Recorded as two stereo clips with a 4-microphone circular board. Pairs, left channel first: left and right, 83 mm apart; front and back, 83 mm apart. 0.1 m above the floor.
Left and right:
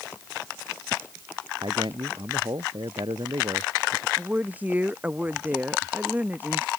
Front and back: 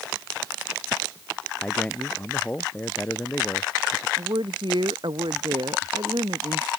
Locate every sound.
1.6 s a man speaking: 75° right; by 4.1 s 65° right
4.2 s a woman speaking: 160° right